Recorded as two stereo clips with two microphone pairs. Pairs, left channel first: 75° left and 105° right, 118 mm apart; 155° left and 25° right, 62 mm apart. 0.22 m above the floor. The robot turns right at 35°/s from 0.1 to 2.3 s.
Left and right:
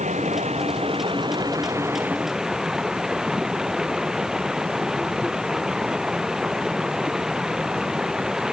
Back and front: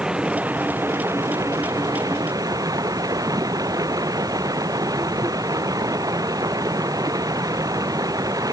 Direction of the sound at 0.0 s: 100° right.